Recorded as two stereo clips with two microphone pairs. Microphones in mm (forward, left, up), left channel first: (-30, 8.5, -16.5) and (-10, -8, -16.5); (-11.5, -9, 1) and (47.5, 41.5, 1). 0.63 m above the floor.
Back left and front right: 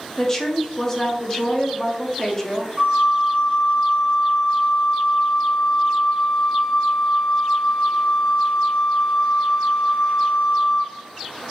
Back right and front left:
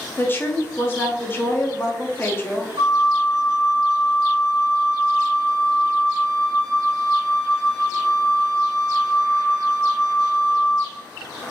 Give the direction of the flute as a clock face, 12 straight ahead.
11 o'clock.